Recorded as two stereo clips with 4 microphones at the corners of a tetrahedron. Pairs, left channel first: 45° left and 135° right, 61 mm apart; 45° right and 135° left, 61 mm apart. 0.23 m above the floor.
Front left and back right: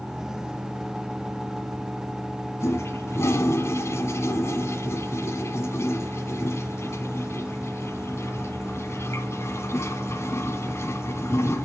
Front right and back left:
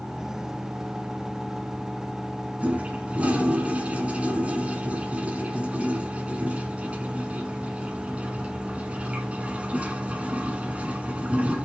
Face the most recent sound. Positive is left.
turn(degrees=75)